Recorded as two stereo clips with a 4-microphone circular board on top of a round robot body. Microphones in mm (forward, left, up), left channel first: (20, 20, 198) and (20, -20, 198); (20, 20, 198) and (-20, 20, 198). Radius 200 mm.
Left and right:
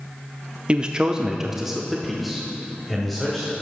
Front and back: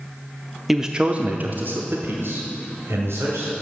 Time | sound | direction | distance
0.7 | a man speaking | 100° right | 0.9 m